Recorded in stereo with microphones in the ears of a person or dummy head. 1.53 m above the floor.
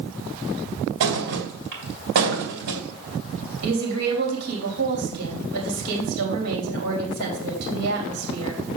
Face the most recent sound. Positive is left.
turn(degrees=-90)